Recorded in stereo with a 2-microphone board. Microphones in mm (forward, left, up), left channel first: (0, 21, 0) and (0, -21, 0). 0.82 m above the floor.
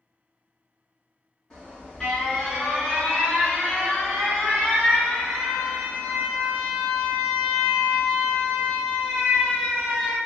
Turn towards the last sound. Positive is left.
turn(degrees=15)  # may be behind; listen again after turning